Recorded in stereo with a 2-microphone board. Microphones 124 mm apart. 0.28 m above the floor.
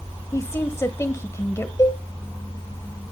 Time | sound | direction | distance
0.3 | a woman speaking | 25° left (ahead or behind) | 1.0 m
1.8 | a cowbell | 30° left (ahead or behind) | 2.5 m